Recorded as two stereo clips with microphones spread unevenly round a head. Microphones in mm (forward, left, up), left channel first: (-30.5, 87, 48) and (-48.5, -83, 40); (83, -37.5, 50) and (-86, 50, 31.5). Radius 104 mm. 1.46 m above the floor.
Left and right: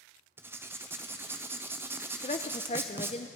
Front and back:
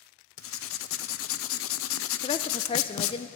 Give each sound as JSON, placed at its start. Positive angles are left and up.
{"t": 0.4, "sound": "writing", "azimuth_deg": -20, "distance_m": 0.7}
{"t": 2.2, "sound": "a woman speaking", "azimuth_deg": 30, "distance_m": 0.5}